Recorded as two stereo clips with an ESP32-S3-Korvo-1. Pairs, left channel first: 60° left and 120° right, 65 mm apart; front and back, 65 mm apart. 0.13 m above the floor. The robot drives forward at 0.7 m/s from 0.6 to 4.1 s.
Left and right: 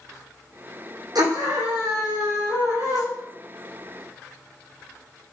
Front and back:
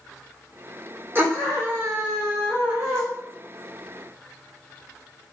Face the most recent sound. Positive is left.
turn(degrees=-140)